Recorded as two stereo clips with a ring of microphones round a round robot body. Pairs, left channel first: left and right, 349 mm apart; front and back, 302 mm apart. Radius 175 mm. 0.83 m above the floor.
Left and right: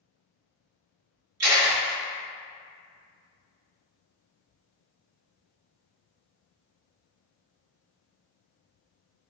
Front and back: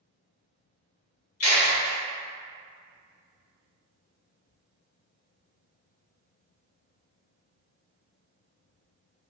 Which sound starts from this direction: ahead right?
A camera shutter, at 1.4 s.